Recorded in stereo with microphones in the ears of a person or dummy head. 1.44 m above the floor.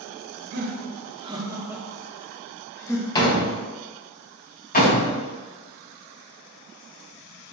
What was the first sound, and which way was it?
Laughter, 55° right (ahead or behind).